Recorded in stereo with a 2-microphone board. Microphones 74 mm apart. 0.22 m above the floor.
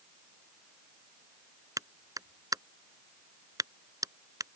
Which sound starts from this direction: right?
A clap, at 1.8 s.